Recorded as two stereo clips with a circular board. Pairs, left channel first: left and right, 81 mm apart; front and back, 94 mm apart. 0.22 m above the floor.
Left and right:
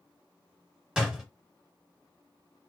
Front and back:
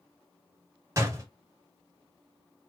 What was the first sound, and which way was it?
A door slam, 165° right.